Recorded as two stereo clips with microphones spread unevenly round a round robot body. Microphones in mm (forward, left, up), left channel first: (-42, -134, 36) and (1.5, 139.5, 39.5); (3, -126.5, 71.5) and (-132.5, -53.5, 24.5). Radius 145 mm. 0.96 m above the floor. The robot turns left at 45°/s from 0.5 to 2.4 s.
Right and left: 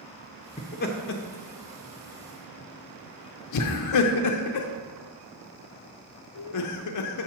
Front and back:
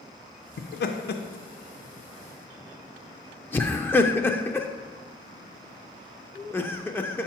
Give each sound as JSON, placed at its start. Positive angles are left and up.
{"t": 0.6, "sound": "laughter", "azimuth_deg": -30, "distance_m": 0.5}